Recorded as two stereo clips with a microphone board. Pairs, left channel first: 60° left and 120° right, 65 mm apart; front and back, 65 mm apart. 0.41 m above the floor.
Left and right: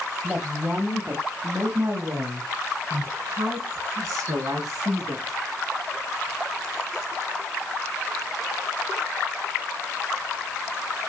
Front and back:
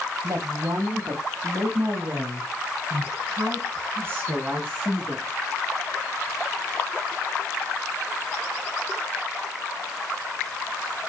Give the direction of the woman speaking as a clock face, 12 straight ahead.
6 o'clock.